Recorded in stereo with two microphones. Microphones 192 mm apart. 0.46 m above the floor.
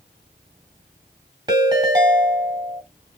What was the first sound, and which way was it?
A ringtone, 25° right (ahead or behind).